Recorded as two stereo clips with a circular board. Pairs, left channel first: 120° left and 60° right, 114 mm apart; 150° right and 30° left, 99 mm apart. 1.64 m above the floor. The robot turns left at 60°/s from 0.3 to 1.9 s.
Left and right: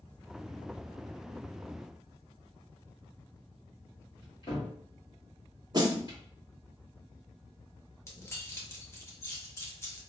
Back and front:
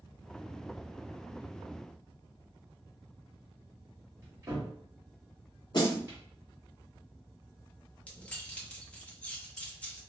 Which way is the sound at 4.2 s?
85° left.